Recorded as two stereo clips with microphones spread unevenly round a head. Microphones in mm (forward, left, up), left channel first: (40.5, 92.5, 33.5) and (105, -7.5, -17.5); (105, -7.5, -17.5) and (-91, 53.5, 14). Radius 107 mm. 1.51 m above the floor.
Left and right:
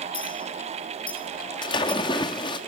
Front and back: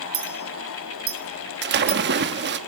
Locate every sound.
0.1 s a clink: 175° right, 3.5 m
1.6 s a splash: 150° left, 1.4 m